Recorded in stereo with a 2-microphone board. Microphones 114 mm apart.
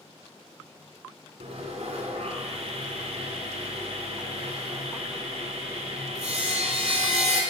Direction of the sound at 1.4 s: 75° right (ahead or behind).